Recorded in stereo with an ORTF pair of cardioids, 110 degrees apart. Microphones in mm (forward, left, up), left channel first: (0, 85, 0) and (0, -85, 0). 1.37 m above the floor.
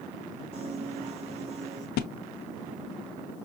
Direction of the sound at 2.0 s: 70° left.